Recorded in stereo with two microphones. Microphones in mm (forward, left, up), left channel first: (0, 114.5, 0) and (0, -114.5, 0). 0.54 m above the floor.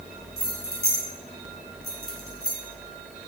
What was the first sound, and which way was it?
Keys jangling, 75° left (ahead or behind).